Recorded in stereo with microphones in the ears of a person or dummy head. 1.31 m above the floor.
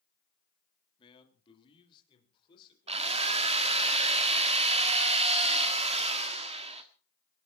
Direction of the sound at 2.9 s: 40° right (ahead or behind).